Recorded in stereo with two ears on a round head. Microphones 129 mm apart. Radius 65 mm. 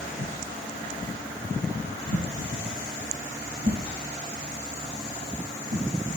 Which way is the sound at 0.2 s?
80° right.